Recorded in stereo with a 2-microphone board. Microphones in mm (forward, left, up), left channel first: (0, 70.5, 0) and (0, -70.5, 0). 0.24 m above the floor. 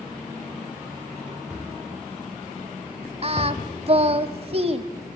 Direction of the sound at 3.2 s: 45° right (ahead or behind).